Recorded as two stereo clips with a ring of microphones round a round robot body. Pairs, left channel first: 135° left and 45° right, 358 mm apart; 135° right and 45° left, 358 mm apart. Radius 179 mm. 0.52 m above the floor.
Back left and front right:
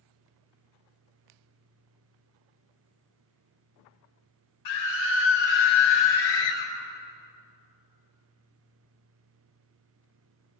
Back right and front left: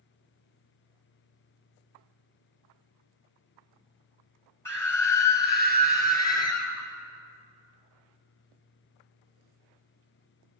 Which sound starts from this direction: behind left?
A scream, at 4.7 s.